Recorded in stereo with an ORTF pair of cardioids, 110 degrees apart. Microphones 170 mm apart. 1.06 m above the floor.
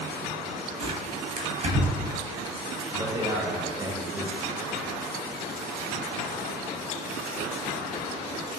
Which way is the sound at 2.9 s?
20° right.